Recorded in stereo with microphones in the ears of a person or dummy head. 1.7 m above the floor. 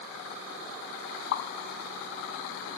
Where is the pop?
75° left (ahead or behind), 1.0 m.